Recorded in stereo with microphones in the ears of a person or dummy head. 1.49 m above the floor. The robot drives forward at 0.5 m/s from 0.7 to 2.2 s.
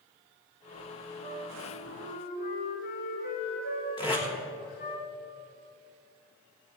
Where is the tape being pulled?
20° left (ahead or behind), 2.5 m.